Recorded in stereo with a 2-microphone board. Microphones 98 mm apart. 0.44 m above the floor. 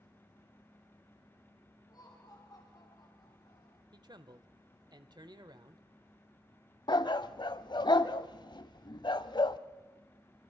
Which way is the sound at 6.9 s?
50° left (ahead or behind).